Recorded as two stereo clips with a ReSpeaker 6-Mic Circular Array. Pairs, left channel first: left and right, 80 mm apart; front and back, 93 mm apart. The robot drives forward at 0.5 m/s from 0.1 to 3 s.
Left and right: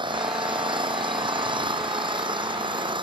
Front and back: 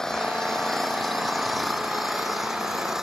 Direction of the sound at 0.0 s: 85° right.